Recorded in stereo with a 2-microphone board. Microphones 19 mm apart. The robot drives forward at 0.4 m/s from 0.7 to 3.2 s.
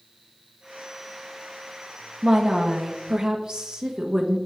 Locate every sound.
2.2 s a woman speaking: 50° right (ahead or behind), 1.2 m; by 4.4 s 45° right (ahead or behind), 1.3 m